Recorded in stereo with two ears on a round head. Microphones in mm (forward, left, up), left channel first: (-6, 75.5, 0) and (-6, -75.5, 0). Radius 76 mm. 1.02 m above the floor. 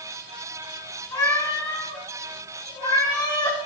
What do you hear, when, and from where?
1.1 s a cat meowing: 20° left (ahead or behind), 5.5 m; by 3.6 s 30° left (ahead or behind), 6.5 m